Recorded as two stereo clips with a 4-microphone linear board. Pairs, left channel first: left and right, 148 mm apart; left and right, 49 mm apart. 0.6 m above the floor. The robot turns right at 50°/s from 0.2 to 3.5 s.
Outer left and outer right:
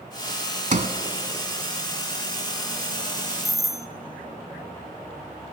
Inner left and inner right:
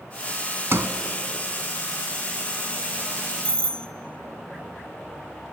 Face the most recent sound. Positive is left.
turn(degrees=20)  # may be behind; listen again after turning